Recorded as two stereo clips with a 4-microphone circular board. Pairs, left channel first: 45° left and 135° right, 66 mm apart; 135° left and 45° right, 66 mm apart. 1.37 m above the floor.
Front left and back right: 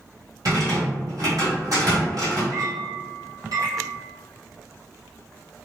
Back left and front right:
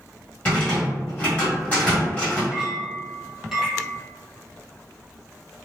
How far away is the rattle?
About 1.4 m.